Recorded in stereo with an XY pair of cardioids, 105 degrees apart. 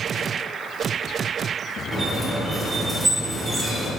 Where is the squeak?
25° right, 1.8 m.